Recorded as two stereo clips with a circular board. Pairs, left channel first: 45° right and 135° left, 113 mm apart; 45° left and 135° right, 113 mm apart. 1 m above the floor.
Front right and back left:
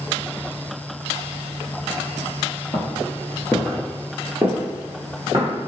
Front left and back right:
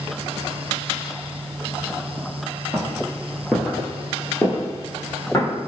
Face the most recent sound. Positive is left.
turn(degrees=95)